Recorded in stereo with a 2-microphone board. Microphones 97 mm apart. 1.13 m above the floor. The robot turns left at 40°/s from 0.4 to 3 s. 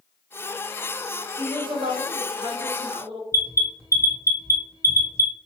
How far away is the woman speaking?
About 1.3 m.